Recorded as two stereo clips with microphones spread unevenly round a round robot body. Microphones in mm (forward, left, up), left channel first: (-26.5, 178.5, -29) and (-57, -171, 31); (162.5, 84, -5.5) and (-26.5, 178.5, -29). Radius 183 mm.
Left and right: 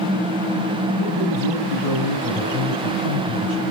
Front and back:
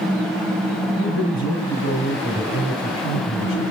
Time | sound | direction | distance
1.0 | a man speaking | 20° right | 6.5 m